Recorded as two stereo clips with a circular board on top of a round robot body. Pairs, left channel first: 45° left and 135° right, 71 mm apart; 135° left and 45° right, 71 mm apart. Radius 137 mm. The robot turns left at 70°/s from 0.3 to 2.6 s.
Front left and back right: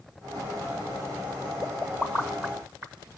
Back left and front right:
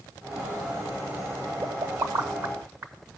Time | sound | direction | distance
1.6 | a pop | 20° right | 1.4 m